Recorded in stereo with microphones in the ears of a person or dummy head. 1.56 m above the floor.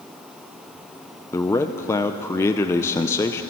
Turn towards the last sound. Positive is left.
turn(degrees=15)  # may be behind; listen again after turning